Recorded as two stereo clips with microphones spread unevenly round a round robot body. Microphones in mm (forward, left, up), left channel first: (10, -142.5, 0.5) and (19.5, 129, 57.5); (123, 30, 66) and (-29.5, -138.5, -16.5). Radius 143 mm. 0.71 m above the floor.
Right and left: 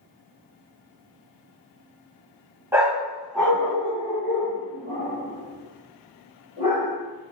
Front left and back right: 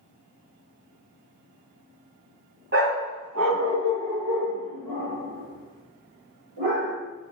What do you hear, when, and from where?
2.7 s a dog barking: 165° left, 1.1 m; by 7.0 s 165° right, 3.5 m